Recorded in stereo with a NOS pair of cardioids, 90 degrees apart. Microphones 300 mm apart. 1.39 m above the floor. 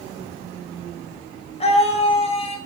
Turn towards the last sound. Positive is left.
turn(degrees=20)